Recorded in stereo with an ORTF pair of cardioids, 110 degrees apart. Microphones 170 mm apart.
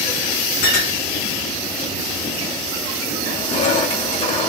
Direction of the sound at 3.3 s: 40° left.